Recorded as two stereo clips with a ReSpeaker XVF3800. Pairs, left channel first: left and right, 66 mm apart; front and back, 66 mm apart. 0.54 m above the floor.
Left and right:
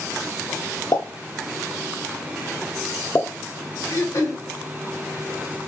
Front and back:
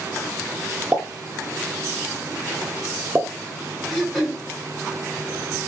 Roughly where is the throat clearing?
Left.